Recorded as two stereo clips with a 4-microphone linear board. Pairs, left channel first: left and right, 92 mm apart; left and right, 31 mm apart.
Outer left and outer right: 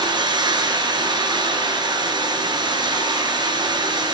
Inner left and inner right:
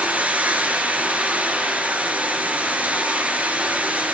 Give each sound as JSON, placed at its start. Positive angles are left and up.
{"t": 0.0, "sound": "running water", "side_deg": -50, "distance_m": 6.0}